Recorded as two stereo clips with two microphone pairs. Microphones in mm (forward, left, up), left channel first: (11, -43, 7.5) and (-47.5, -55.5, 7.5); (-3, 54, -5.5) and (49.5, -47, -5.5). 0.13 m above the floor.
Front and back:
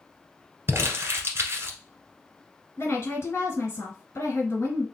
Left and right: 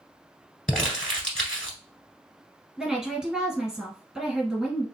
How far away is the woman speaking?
About 2 m.